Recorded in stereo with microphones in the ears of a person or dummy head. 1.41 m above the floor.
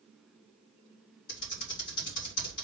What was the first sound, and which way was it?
Typing on a keyboard, 55° left (ahead or behind).